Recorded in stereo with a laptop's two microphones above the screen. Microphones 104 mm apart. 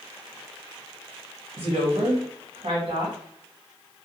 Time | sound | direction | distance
1.6 | a woman speaking | 65° right (ahead or behind) | 1.0 m